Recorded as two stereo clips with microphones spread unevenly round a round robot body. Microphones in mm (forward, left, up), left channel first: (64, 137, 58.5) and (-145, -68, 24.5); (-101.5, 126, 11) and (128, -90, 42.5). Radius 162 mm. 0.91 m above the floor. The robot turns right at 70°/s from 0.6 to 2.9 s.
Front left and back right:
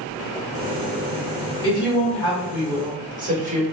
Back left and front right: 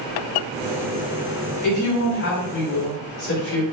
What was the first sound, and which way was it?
A woman speaking, 80° left.